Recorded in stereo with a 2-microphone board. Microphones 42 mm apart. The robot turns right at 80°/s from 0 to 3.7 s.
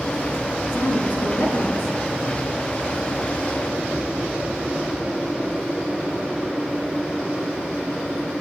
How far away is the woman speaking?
About 2.5 m.